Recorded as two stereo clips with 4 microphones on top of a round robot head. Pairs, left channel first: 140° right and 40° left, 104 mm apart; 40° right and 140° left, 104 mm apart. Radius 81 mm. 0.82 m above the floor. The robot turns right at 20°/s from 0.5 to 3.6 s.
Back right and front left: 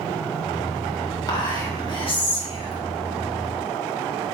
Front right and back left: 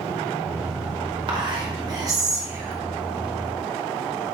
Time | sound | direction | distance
1.3 | whispering | 175° left | 1.8 m